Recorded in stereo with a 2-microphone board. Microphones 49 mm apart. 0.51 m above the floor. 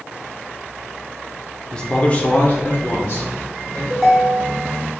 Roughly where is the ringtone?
Centre.